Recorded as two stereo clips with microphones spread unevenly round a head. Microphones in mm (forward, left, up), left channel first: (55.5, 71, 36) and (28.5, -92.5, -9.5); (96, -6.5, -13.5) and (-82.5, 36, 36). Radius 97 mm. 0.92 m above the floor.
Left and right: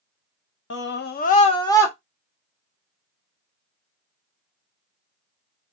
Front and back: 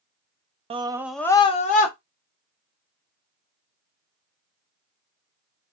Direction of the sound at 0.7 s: 100° left.